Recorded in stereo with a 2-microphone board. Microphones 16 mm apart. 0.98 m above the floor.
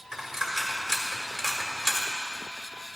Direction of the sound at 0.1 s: 20° right (ahead or behind).